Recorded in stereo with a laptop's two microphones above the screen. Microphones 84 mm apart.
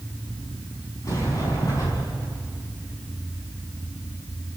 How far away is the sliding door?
About 4.5 m.